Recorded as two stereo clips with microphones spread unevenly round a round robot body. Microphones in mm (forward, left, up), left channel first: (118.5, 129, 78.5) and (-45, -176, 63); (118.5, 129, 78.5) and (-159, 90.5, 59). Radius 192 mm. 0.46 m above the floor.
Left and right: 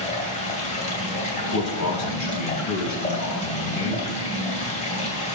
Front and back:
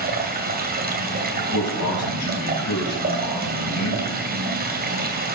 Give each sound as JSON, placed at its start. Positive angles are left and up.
{"t": 0.0, "sound": "running water", "azimuth_deg": 135, "distance_m": 2.5}
{"t": 1.4, "sound": "a man speaking", "azimuth_deg": 25, "distance_m": 4.0}